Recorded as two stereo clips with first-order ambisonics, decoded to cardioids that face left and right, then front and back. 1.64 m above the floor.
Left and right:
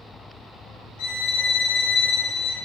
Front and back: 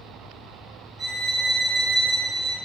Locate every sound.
1.0 s a violin: 95° left, 0.9 m